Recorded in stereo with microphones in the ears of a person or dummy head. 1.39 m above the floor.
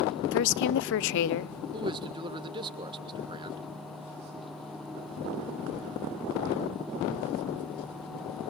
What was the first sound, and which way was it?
A woman speaking, 65° left (ahead or behind).